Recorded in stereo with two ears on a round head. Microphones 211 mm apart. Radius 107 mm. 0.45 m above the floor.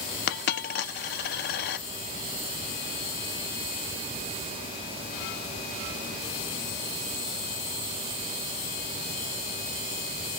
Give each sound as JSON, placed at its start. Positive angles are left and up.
{"t": 0.3, "sound": "a dropped coin", "side_deg": 45, "distance_m": 0.5}